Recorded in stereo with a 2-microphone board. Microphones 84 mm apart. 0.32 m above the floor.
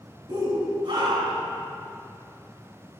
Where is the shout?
65° right (ahead or behind), 2.5 m.